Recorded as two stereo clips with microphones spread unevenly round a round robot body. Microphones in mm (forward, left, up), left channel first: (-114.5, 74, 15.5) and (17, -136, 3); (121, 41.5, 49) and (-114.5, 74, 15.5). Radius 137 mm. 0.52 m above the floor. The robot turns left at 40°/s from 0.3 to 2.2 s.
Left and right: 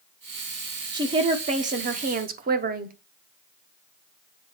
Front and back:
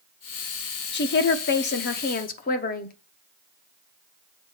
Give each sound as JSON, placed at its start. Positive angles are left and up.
{"t": 0.9, "sound": "a woman speaking", "azimuth_deg": 5, "distance_m": 0.8}